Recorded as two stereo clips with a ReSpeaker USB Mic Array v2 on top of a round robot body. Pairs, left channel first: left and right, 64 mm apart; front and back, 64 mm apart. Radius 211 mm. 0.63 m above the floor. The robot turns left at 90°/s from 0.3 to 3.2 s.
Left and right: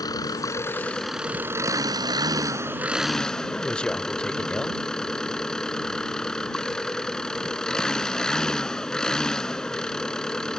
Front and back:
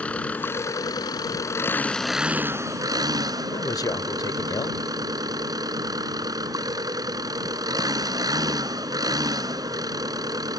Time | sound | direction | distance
0.0 | an engine running | 70° left | ?
3.5 | a man speaking | 15° left | ?